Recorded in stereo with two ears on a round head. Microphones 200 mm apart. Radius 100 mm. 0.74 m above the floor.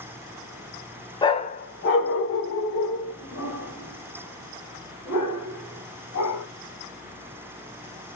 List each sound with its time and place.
1.2 s a dog barking: 20° left (ahead or behind), 0.5 m; by 6.4 s 90° left, 3 m